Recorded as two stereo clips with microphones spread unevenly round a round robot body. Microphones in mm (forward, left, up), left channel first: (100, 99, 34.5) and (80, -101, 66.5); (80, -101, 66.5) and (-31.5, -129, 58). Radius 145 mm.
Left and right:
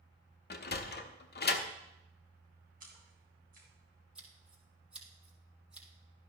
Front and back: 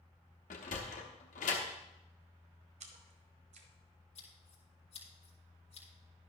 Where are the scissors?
10° right, 4.5 m.